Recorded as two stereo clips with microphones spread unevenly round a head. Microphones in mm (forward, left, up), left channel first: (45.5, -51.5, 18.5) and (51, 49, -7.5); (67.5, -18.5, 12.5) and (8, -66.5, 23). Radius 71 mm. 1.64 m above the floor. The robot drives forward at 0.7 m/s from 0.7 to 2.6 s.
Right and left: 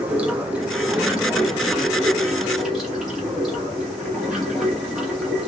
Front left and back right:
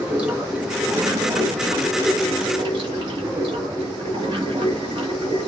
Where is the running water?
175° right, 0.8 m; by 5.5 s straight behind, 1.8 m.